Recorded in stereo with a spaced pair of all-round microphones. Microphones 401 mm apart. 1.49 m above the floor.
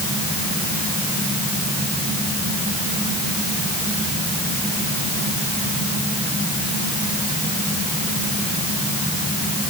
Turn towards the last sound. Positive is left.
No sound to turn to.